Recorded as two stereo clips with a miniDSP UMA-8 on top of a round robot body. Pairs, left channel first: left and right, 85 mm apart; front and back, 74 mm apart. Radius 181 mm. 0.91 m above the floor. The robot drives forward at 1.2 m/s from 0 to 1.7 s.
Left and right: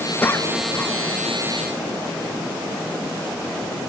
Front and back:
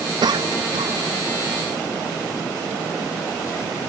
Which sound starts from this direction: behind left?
A cough, at 0.2 s.